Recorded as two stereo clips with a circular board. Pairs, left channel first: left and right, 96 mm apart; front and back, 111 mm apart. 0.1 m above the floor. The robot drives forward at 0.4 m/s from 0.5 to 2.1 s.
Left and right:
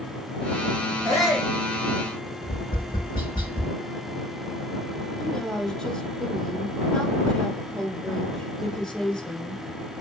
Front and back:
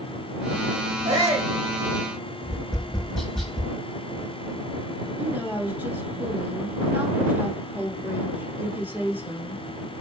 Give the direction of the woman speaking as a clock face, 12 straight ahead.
7 o'clock.